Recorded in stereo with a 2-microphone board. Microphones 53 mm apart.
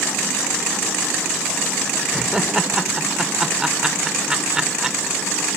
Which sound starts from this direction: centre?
Laughter, at 2.1 s.